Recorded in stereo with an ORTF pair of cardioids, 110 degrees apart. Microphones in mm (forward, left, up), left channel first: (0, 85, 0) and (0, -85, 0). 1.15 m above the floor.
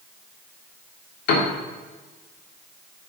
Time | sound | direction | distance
1.3 | a piano | 65° left | 2.5 m